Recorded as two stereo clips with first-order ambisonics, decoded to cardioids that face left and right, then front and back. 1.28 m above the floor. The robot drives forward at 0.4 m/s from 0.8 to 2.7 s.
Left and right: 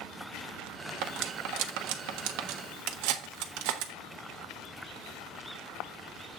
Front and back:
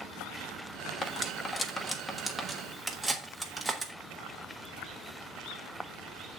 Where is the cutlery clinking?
65° right, 1.3 m; by 3.9 s 100° right, 1.2 m.